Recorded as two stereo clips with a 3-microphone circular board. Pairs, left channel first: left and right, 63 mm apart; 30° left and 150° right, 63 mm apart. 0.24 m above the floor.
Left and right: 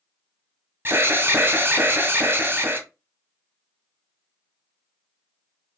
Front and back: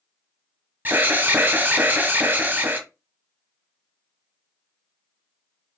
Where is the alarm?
115° right, 0.9 m.